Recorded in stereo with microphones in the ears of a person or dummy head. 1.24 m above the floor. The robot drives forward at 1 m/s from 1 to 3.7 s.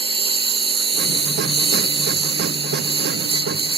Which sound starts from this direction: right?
A lawn mower, at 0.0 s.